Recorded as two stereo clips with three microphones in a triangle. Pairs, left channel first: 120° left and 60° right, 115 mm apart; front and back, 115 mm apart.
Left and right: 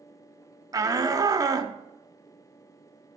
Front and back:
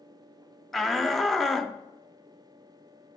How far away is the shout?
About 0.7 m.